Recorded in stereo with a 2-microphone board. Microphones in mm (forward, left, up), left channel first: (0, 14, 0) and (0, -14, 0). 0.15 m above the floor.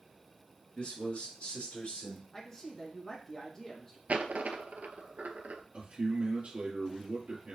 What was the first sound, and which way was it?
A man speaking, 45° left (ahead or behind).